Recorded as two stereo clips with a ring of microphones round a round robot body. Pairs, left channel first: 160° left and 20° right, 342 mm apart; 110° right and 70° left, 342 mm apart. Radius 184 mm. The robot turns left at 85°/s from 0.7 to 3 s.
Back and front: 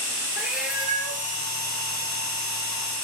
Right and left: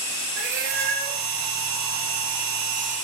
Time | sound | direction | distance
0.4 | a cat meowing | 65° left | 2 m